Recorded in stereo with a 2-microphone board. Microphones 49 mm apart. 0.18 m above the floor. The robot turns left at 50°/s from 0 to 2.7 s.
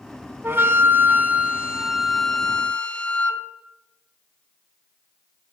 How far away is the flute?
About 0.6 m.